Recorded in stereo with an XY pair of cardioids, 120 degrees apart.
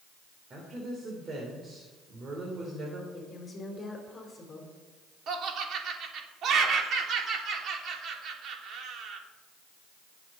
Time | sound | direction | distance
0.5 | a woman speaking | 40° right | 3 m
3.1 | a woman speaking | 30° left | 4 m
5.3 | laughter | 60° right | 3 m